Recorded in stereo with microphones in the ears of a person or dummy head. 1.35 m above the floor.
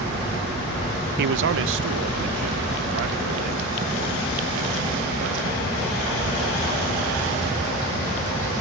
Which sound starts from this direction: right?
A man speaking, at 1.2 s.